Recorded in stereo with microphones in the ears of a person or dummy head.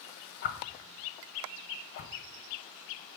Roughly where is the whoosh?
Left.